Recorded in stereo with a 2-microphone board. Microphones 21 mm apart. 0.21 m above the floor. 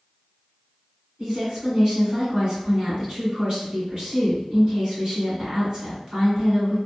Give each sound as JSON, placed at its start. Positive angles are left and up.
{"t": 1.2, "sound": "a woman speaking", "side_deg": -45, "distance_m": 2.0}